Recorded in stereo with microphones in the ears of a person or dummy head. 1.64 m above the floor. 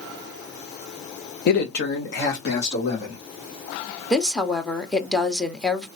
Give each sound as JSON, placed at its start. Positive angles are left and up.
{"t": 1.5, "sound": "a man speaking", "side_deg": 55, "distance_m": 0.8}
{"t": 4.1, "sound": "a woman speaking", "side_deg": 5, "distance_m": 0.9}